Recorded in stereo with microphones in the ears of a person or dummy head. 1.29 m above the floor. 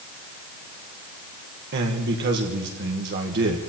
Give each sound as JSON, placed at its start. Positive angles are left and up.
{"t": 1.7, "sound": "a man speaking", "side_deg": -55, "distance_m": 1.3}